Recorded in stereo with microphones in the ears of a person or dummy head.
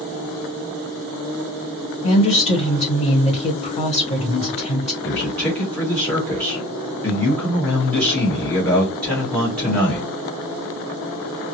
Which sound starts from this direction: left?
A woman speaking, at 2.0 s.